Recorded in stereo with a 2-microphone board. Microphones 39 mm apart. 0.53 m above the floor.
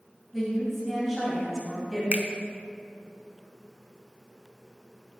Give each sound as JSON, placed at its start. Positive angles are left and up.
{"t": 0.3, "sound": "a woman speaking", "side_deg": -5, "distance_m": 2.5}
{"t": 2.1, "sound": "a finger snap", "side_deg": -40, "distance_m": 0.8}